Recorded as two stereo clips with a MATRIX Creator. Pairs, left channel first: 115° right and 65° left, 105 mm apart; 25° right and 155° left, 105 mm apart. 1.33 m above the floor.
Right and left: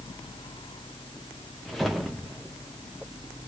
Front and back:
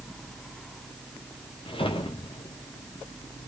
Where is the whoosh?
20° right, 0.8 m.